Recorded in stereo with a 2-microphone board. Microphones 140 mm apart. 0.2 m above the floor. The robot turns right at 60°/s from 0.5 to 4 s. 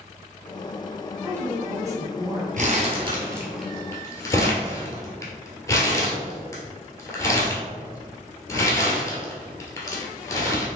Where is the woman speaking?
15° right (ahead or behind), 1.1 m; by 2.5 s 20° right (ahead or behind), 1.1 m.